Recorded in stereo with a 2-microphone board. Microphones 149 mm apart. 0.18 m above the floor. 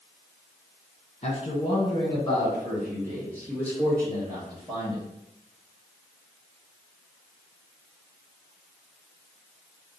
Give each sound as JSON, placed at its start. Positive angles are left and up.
{"t": 1.2, "sound": "a man speaking", "side_deg": 40, "distance_m": 1.4}